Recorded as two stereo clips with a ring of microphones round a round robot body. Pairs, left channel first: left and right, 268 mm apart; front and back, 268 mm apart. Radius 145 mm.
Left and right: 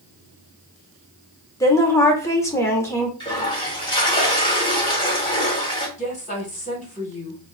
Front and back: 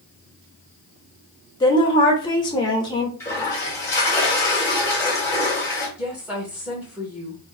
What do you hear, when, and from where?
1.6 s a woman speaking: 35° left, 0.8 m
3.2 s a toilet flushing: 60° left, 1.1 m
6.0 s a woman speaking: 100° left, 1.3 m